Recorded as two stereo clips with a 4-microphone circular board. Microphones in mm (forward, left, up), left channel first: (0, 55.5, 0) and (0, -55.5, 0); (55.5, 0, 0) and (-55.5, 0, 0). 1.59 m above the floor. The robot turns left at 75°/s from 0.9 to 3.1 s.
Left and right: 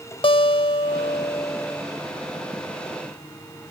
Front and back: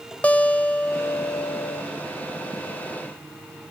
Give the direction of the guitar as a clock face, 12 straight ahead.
10 o'clock.